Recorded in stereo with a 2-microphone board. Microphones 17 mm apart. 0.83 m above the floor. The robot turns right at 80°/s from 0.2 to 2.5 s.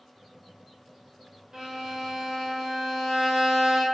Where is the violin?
135° right, 1.0 m; by 3.9 s 60° right, 1.0 m.